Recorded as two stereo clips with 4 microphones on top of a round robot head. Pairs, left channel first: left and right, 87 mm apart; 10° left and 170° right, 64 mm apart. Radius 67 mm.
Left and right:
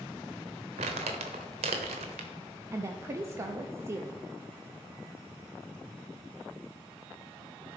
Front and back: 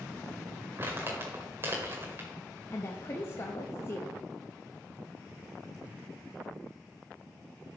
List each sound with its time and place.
0.8 s crumpling: 105° right, 0.9 m
2.7 s a woman speaking: 35° right, 0.7 m